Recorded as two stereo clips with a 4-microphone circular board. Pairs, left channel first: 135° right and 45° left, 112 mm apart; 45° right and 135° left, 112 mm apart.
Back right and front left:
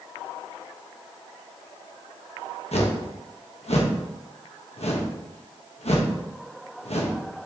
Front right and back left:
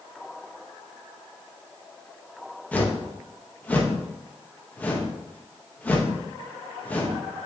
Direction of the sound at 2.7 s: 120° right.